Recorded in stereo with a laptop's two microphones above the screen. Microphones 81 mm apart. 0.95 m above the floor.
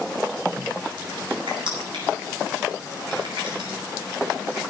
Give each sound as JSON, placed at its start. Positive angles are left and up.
{"t": 1.5, "sound": "crushing", "side_deg": -80, "distance_m": 5.5}